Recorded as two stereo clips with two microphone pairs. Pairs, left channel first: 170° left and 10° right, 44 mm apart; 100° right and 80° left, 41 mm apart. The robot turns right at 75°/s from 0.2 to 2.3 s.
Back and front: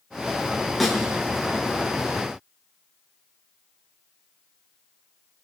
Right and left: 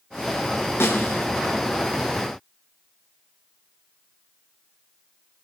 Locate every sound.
0.8 s a snare drum: 100° right, 6 m; by 1.2 s 70° right, 6 m